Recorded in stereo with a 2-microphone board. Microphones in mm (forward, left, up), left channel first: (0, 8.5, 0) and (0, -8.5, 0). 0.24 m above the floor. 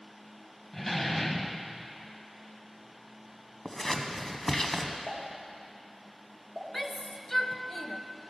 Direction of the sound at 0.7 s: 20° left (ahead or behind).